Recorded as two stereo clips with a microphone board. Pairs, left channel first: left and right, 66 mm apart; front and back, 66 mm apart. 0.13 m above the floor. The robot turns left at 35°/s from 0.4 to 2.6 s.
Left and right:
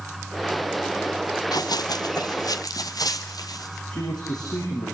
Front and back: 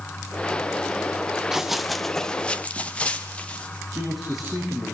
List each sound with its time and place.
1.5 s running footsteps: 95° left, 0.6 m; by 3.8 s 70° left, 3.5 m
3.9 s a man speaking: 90° left, 6.5 m